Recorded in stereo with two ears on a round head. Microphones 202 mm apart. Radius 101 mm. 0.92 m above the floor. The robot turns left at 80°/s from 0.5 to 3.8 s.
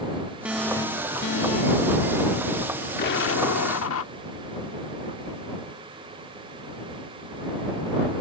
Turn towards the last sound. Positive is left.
turn(degrees=70)